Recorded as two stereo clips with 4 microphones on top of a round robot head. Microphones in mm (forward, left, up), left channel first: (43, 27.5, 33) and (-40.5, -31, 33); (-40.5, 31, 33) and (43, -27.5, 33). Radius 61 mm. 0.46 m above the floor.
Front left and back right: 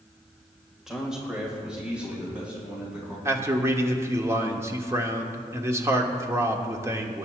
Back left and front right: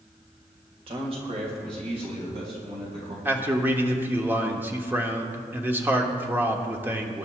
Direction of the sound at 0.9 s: 60° right.